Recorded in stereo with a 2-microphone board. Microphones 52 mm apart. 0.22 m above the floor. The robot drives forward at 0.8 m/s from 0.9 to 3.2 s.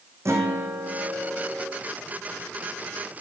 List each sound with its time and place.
0.2 s a guitar: 60° right (ahead or behind), 2.5 m; by 1.7 s 50° right (ahead or behind), 3 m